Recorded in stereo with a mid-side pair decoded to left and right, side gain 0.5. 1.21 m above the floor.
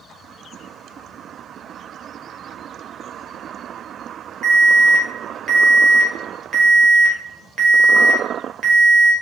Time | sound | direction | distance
4.4 | an alarm | 60° right | 0.9 m